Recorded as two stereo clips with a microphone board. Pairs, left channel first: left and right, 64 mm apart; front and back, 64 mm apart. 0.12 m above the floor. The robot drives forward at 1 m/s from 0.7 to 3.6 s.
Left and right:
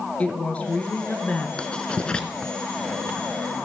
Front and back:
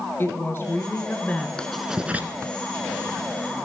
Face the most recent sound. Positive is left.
turn(degrees=170)